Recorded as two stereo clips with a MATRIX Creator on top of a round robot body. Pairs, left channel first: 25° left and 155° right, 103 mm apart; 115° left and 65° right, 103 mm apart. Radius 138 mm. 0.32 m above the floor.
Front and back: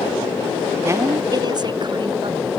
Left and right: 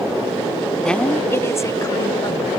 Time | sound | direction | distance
0.8 | a woman speaking | 170° right | ?